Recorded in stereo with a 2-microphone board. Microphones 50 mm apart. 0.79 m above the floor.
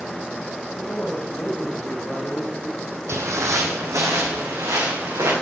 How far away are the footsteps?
About 1.7 m.